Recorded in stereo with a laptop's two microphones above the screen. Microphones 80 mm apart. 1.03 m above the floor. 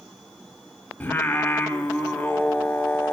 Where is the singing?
25° left (ahead or behind), 0.9 m.